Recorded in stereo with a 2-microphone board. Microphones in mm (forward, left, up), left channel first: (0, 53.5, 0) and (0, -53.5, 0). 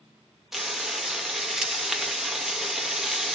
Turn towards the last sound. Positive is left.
turn(degrees=-5)  # may be behind; listen again after turning